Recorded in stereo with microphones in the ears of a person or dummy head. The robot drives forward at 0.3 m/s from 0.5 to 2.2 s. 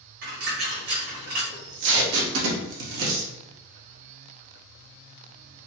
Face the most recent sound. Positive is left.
turn(degrees=-75)  # may be behind; listen again after turning